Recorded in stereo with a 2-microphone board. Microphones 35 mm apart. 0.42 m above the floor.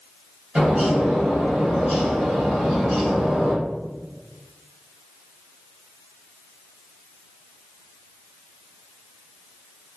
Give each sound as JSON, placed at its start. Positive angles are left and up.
{"t": 0.6, "sound": "a bird", "side_deg": -30, "distance_m": 1.8}